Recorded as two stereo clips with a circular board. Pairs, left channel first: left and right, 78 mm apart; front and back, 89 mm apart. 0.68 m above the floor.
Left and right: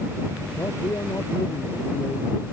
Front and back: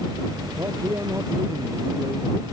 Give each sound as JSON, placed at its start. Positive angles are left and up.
{"t": 0.6, "sound": "a man speaking", "azimuth_deg": 130}